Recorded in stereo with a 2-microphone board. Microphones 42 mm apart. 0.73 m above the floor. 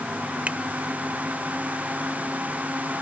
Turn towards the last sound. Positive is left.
turn(degrees=-30)  # may be behind; listen again after turning